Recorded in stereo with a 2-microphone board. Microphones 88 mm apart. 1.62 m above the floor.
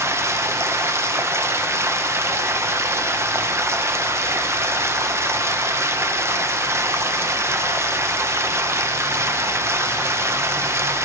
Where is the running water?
30° right (ahead or behind), 0.8 m.